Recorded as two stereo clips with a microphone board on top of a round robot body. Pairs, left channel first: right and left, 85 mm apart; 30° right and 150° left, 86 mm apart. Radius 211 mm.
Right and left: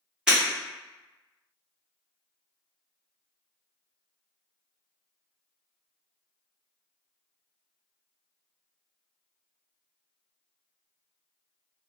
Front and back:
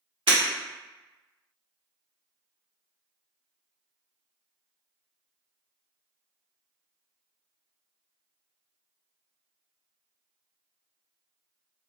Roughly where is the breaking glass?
Behind.